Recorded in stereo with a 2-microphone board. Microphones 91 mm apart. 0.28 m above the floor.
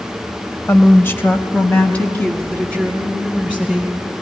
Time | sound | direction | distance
0.7 | a woman speaking | 25° left (ahead or behind) | 0.9 m